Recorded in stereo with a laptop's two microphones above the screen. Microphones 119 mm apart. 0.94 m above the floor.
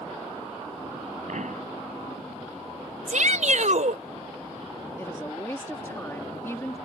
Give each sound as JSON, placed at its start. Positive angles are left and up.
{"t": 1.3, "sound": "a pop", "side_deg": -75}
{"t": 3.1, "sound": "a shout", "side_deg": -75}
{"t": 5.0, "sound": "a woman speaking", "side_deg": 20}